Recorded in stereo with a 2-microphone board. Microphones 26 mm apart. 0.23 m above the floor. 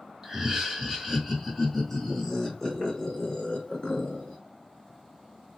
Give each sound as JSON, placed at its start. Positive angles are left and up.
{"t": 0.2, "sound": "laughter", "side_deg": -20, "distance_m": 1.5}